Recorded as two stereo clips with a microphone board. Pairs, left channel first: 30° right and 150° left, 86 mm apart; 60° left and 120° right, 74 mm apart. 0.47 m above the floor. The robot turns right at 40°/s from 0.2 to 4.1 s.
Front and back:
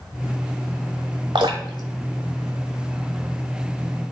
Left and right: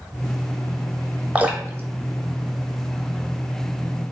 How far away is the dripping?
About 0.7 m.